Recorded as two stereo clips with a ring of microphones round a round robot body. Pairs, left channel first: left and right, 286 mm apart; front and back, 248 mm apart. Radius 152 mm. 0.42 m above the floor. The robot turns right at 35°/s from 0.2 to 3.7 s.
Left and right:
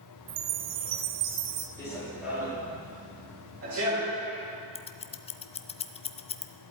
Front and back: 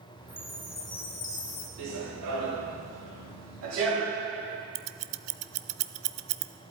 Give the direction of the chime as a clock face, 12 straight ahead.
3 o'clock.